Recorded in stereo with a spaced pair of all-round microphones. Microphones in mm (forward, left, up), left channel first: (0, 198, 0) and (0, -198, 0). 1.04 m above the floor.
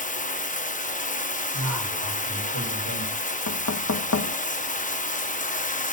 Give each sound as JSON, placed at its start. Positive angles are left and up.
{"t": 0.0, "sound": "running water", "side_deg": 20, "distance_m": 0.8}
{"t": 1.5, "sound": "a man speaking", "side_deg": -45, "distance_m": 5.0}
{"t": 3.5, "sound": "knocking", "side_deg": 40, "distance_m": 0.6}